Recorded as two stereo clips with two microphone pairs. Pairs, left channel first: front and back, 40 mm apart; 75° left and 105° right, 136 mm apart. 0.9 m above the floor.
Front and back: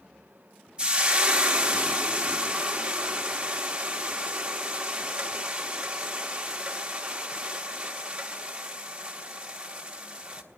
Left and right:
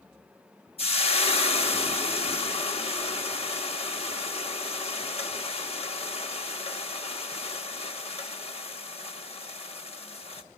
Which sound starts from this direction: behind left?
Frying, at 0.8 s.